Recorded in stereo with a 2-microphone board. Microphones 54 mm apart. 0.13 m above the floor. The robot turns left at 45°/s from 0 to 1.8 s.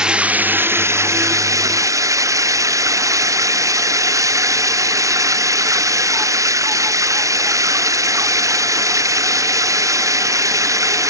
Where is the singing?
No singing in this recording.